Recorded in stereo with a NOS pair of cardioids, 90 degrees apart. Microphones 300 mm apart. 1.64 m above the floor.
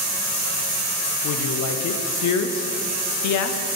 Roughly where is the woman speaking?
Left.